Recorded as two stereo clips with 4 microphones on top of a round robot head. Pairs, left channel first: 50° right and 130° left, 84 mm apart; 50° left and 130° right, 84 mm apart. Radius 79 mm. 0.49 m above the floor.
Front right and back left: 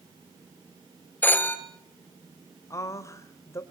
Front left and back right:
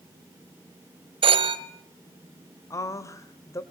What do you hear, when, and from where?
1.2 s a phone ringing: 120° right, 1.9 m
2.7 s a woman speaking: straight ahead, 2 m